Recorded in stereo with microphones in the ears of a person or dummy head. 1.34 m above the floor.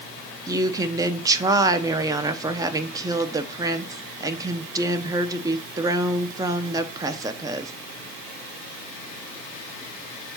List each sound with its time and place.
0.5 s a woman speaking: 20° right (ahead or behind), 0.6 m